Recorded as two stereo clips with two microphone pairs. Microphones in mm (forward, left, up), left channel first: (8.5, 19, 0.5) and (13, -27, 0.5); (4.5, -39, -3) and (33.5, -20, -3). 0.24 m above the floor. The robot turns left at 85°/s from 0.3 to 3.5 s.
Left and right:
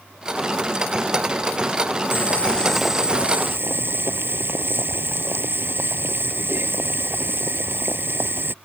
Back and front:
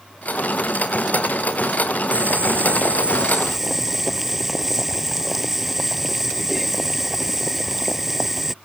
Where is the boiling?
65° left; by 8.5 s 50° right.